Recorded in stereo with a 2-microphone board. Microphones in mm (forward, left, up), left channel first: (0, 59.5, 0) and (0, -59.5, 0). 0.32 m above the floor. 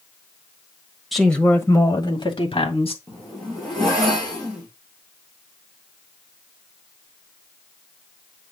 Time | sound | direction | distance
1.1 | a woman speaking | centre (ahead or behind) | 1.3 m
3.1 | a zipper | 5° left (ahead or behind) | 4 m